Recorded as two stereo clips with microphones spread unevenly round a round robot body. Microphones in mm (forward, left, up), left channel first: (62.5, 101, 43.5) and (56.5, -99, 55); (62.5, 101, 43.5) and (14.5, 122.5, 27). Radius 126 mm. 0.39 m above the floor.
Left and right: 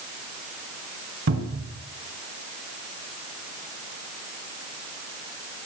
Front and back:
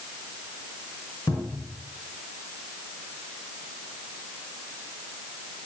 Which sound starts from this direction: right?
A cupboard door, at 1.3 s.